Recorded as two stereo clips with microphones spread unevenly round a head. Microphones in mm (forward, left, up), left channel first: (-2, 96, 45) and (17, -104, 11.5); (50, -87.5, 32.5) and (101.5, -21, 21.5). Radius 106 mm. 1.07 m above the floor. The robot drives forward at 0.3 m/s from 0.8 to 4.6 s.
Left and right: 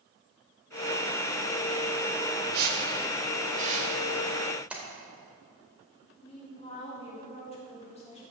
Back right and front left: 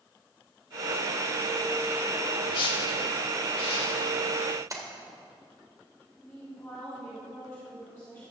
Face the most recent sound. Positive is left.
turn(degrees=160)